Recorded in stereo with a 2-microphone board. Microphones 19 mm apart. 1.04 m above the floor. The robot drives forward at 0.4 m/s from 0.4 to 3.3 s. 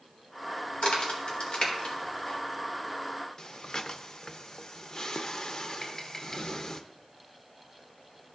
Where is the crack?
85° left, 2 m; by 2.4 s 70° left (ahead or behind), 2.5 m.